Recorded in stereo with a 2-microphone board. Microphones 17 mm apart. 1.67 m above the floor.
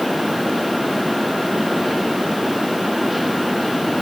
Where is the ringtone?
I don't hear a ringtone.